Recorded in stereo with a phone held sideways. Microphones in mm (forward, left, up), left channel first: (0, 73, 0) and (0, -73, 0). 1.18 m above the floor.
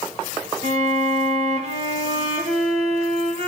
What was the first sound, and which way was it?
A violin, 45° right (ahead or behind).